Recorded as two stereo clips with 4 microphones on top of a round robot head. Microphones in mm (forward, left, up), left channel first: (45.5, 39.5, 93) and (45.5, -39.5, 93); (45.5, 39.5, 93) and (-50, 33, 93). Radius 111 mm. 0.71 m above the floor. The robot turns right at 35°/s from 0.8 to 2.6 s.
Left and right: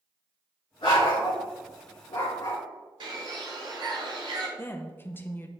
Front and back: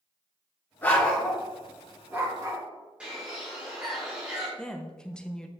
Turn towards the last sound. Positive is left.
turn(degrees=75)